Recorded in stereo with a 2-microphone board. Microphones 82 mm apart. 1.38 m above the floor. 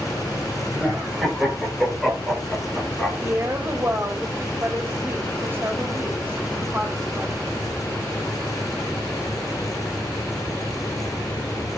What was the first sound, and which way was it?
Laughter, 10° right (ahead or behind).